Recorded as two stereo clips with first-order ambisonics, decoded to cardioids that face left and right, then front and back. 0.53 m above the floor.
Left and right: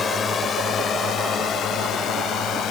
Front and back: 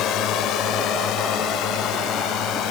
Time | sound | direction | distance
0.0 | a drone | 25° left | ?